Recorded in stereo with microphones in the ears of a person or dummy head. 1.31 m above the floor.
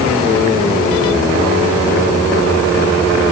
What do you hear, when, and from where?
Only background noise.